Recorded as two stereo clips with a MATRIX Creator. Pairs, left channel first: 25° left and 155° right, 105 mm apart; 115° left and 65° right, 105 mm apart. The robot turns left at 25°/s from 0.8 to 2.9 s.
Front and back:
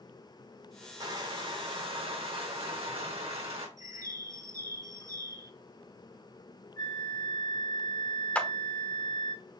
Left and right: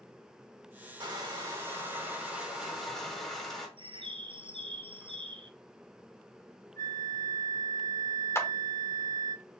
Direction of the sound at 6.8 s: 65° left.